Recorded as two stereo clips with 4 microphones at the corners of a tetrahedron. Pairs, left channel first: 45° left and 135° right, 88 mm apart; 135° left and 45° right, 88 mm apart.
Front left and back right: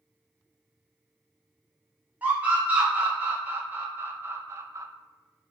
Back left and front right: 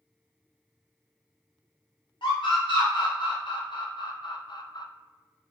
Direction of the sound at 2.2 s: 155° left.